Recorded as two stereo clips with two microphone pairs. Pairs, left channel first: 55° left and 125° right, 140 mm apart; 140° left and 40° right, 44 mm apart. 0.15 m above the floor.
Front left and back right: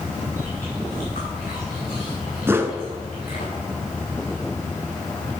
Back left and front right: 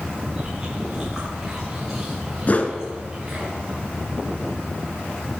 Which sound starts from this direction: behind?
A whoosh, at 2.5 s.